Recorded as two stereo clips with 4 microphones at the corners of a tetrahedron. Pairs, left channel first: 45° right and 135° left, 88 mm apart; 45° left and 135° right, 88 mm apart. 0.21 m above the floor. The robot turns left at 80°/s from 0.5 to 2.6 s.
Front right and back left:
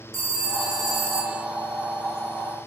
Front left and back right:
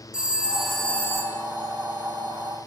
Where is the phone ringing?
145° left, 0.7 m; by 1.4 s 70° left, 0.7 m.